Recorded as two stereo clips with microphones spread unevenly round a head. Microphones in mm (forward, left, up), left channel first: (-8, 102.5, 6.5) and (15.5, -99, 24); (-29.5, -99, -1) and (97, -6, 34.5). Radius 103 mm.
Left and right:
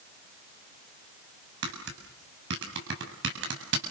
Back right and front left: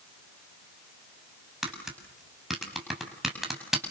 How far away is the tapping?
About 7 m.